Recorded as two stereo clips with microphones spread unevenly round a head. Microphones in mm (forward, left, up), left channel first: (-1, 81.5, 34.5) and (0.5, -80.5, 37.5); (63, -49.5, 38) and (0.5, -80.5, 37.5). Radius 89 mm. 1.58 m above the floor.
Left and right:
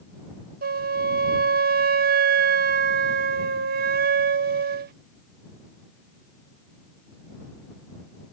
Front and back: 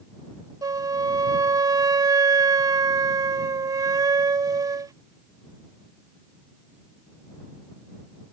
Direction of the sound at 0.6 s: 125° right.